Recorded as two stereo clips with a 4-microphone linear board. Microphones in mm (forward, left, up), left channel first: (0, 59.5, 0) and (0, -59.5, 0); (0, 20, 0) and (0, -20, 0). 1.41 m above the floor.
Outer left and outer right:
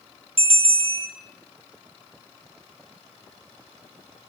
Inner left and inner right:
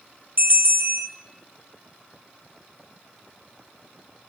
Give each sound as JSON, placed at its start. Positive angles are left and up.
{"t": 0.4, "sound": "a bell", "side_deg": -50, "distance_m": 0.6}